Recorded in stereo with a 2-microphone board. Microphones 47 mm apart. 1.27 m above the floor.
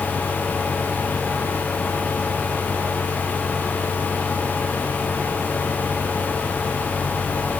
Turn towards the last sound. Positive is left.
No sound to turn to.